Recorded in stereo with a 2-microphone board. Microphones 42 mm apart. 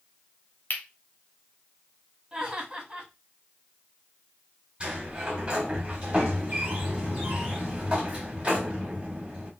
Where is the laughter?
20° right (ahead or behind), 1.7 m.